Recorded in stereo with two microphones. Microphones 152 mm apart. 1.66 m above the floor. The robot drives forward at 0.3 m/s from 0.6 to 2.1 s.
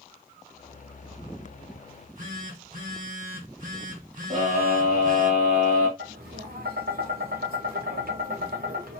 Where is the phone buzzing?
60° right (ahead or behind), 1.5 m.